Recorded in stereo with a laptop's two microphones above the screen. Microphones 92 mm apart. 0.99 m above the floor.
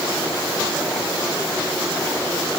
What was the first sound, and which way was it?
Only background noise.